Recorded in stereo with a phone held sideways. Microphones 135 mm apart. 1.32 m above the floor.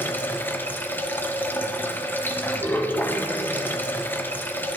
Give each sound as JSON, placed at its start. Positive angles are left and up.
{"t": 0.0, "sound": "running water", "side_deg": 15, "distance_m": 0.7}